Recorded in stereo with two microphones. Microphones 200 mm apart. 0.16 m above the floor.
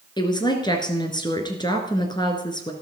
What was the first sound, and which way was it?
A woman speaking, 20° left (ahead or behind).